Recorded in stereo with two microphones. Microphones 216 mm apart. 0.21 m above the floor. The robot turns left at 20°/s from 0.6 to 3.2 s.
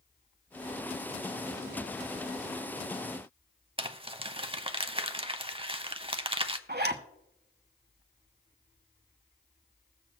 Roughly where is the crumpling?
Right.